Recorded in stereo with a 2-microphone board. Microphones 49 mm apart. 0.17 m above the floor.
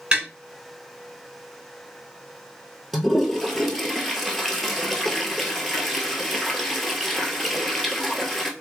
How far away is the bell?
No bell in this recording.